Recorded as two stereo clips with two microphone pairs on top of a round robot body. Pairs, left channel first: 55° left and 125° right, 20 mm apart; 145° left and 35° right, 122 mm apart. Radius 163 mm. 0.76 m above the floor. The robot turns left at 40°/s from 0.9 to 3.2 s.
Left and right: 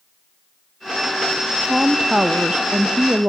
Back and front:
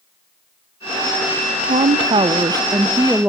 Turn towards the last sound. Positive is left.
turn(degrees=-110)